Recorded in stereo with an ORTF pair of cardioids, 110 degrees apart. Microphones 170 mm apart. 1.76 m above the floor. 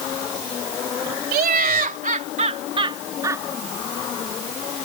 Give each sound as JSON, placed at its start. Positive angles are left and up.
{"t": 1.3, "sound": "laughter", "azimuth_deg": -65}